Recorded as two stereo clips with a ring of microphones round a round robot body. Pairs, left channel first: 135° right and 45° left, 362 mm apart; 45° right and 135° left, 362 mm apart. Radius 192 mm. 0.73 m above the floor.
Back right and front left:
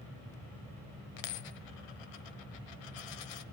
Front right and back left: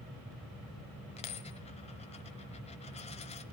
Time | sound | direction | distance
1.2 | a dropped coin | 120° right | 1.3 m